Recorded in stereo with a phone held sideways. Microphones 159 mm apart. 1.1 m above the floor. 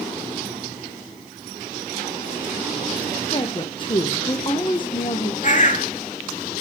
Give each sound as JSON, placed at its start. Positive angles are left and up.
{"t": 3.3, "sound": "a woman speaking", "side_deg": 30, "distance_m": 0.8}
{"t": 5.4, "sound": "a bird", "side_deg": 50, "distance_m": 1.0}